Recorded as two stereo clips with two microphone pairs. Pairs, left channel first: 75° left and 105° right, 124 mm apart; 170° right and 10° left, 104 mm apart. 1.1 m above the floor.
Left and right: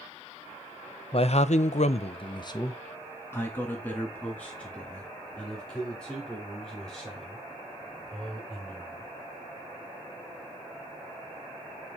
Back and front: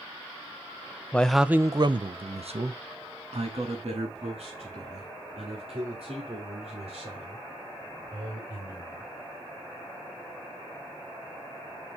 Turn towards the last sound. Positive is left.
turn(degrees=-10)